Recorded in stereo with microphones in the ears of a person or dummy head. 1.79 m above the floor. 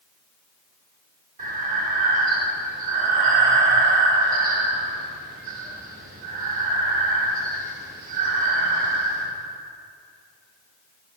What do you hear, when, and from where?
1.4 s breathing: 50° right (ahead or behind), 2 m